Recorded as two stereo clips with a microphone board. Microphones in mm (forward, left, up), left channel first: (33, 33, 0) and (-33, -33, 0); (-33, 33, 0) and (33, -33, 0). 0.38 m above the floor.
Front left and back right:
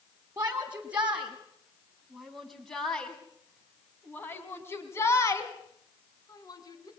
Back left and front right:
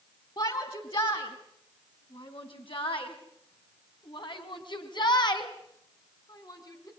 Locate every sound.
0.4 s a shout: 160° left, 3 m; by 6.9 s 90° left, 4 m